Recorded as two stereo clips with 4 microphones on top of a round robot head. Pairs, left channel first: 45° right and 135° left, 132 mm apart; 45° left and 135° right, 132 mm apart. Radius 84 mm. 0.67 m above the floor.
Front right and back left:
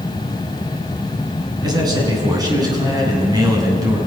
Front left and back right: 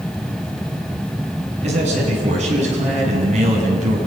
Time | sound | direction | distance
1.6 | a man speaking | 165° right | 8 m